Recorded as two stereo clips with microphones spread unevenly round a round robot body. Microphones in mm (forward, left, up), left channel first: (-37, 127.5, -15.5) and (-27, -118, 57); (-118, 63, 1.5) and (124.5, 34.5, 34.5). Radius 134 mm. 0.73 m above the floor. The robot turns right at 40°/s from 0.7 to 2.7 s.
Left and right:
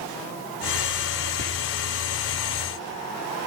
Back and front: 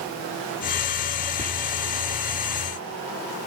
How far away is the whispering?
About 1.8 m.